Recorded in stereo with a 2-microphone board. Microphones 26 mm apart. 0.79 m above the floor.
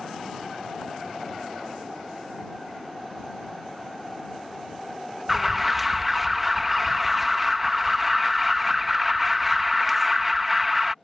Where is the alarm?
5° right (ahead or behind).